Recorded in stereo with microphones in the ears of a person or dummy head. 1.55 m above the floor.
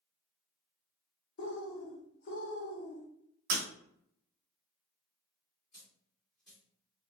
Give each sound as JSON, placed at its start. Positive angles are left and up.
{"t": 1.4, "sound": "a bird", "side_deg": 60, "distance_m": 1.0}
{"t": 3.5, "sound": "breaking glass", "side_deg": -45, "distance_m": 1.2}
{"t": 5.7, "sound": "a dropped coin", "side_deg": 0, "distance_m": 1.6}